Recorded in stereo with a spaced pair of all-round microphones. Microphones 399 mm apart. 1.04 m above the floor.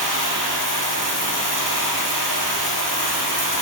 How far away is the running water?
About 5 m.